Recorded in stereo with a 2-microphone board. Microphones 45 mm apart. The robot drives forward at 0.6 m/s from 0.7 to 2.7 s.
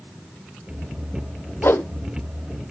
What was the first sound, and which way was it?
A whoosh, 60° left (ahead or behind).